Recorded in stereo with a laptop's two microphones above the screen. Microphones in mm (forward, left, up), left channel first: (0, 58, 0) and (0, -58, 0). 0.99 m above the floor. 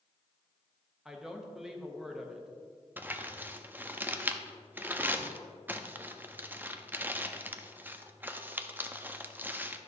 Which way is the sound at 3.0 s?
15° right (ahead or behind).